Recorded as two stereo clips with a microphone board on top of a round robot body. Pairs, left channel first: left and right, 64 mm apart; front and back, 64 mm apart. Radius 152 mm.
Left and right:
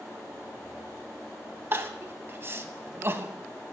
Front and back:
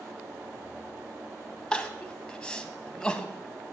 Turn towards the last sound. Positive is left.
turn(degrees=-70)